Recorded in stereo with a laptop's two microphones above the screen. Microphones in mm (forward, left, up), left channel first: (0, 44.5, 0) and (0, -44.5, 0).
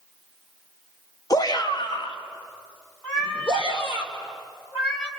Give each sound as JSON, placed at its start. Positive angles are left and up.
{"t": 1.3, "sound": "a shout", "side_deg": 40, "distance_m": 1.2}
{"t": 3.0, "sound": "a cat meowing", "side_deg": 10, "distance_m": 1.9}